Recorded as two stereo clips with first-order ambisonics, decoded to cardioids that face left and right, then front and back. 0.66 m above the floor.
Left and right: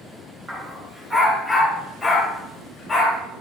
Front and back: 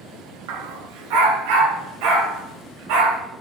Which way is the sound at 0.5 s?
170° right.